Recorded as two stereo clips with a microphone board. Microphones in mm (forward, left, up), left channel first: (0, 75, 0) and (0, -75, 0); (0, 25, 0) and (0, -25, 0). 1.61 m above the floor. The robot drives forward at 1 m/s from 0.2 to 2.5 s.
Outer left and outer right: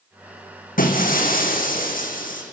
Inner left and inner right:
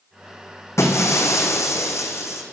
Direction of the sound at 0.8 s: 65° left (ahead or behind).